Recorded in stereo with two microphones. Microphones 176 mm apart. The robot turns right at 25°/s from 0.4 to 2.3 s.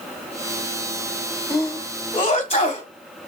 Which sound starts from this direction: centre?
A sneeze, at 1.5 s.